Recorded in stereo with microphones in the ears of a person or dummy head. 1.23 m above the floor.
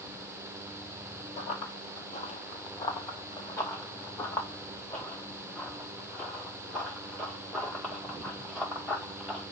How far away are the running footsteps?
About 1.7 m.